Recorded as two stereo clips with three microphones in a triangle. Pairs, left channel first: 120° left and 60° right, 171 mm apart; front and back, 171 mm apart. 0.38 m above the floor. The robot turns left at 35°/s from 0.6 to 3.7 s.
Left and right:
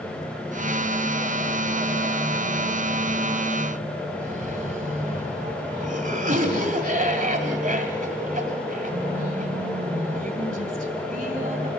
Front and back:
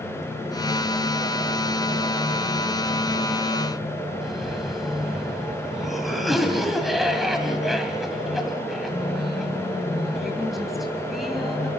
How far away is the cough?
About 1.8 m.